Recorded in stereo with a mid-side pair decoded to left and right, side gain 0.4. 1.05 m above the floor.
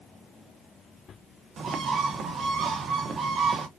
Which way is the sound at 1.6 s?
65° right.